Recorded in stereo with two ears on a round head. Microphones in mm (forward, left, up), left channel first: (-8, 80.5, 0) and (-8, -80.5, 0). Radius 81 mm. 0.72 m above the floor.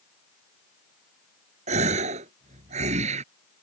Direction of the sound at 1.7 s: 40° right (ahead or behind).